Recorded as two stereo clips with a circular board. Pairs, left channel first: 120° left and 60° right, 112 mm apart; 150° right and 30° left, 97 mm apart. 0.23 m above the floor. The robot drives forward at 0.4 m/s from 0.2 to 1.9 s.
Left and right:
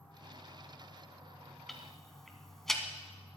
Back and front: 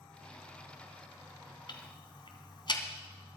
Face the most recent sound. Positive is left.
turn(degrees=-155)